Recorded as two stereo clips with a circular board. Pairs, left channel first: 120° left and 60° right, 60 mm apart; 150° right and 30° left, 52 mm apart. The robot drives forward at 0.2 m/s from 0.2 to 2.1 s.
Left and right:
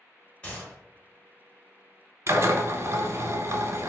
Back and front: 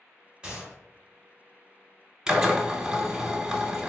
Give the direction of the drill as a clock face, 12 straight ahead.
1 o'clock.